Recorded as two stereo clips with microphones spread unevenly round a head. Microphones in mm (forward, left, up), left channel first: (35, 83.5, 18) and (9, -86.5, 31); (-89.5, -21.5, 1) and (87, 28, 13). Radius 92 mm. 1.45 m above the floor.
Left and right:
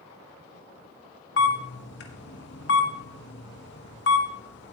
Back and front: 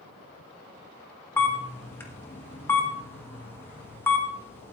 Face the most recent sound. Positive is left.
turn(degrees=115)